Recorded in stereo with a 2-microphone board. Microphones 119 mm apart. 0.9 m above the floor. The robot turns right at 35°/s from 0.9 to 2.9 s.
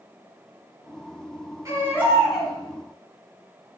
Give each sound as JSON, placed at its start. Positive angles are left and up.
{"t": 1.6, "sound": "a baby crying", "azimuth_deg": -25, "distance_m": 4.5}